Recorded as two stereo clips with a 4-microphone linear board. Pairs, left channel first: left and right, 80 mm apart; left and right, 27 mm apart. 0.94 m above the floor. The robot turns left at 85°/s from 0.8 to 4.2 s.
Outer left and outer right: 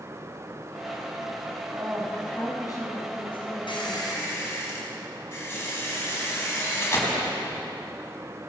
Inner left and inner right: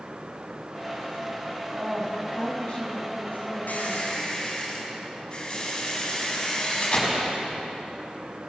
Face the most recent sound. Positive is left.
turn(degrees=30)